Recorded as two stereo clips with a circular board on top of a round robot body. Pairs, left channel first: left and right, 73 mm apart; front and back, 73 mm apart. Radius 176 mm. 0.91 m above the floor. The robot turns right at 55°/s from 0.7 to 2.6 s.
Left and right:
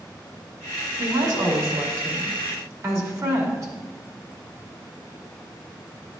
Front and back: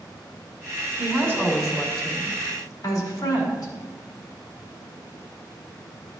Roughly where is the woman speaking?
Behind right.